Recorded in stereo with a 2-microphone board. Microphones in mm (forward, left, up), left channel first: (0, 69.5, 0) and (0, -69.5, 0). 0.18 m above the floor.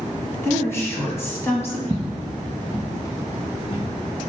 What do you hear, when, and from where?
0.4 s a woman speaking: 20° left (ahead or behind), 1.0 m
1.9 s footsteps: 30° right (ahead or behind), 0.6 m; by 3.9 s 40° left (ahead or behind), 2.5 m